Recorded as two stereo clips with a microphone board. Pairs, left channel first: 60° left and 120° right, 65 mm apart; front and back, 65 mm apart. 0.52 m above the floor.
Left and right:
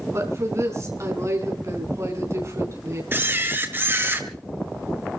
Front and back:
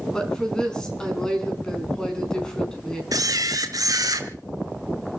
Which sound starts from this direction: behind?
A camera shutter, at 3.1 s.